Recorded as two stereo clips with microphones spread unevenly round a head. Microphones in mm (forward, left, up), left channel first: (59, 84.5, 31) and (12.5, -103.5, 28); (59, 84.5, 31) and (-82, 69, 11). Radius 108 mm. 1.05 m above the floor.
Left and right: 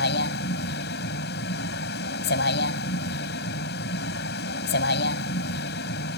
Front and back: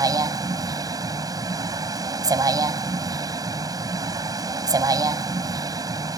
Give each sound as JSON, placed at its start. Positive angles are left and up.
{"t": 0.0, "sound": "a vehicle", "azimuth_deg": 120}